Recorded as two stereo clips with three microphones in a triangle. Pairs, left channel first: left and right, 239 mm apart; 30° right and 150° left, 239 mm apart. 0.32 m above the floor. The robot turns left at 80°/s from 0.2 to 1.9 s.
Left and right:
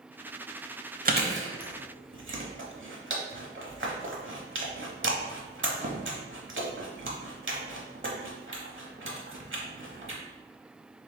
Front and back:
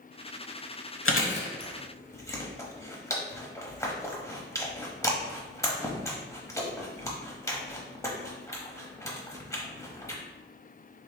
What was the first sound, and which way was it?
Chewing, 40° right.